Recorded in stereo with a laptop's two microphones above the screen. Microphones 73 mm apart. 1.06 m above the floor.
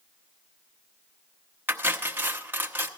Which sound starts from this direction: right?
Cutlery clinking, at 1.7 s.